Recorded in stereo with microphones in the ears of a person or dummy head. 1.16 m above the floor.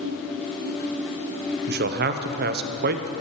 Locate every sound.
1.7 s a man speaking: 45° right (ahead or behind), 0.5 m